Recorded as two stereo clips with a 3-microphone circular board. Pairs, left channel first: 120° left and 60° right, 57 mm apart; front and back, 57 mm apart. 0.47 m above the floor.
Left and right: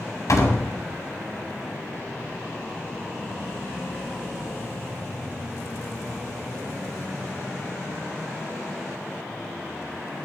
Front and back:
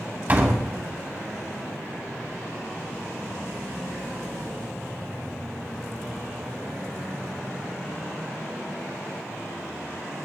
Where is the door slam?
130° left, 1.8 m.